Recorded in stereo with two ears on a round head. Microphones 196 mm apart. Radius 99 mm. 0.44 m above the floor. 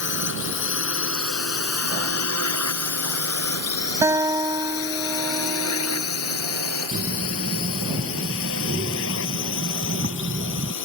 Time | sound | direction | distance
0.0 | a drone | 55° left (ahead or behind) | ?
4.0 | a guitar | 15° right (ahead or behind) | ?
6.9 | breathing | 40° right (ahead or behind) | ?